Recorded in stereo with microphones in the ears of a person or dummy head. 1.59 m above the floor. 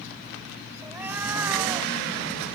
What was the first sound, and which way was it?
A cat meowing, 10° right (ahead or behind).